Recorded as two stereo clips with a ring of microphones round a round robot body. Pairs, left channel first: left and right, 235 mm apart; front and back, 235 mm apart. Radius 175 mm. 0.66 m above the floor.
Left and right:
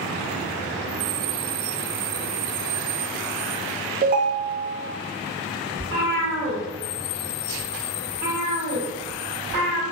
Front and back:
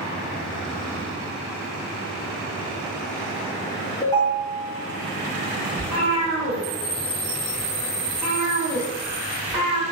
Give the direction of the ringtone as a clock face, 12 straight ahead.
2 o'clock.